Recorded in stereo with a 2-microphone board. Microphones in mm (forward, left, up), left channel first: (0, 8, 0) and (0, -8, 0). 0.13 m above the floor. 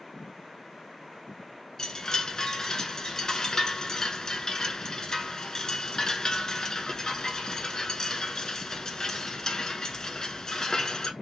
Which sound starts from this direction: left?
A chime, at 1.8 s.